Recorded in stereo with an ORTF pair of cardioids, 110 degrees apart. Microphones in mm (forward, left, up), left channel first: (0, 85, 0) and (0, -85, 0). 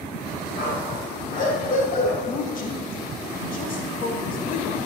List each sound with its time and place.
0.6 s a dog barking: 50° left, 3.5 m
2.2 s a woman speaking: 55° left, 2.5 m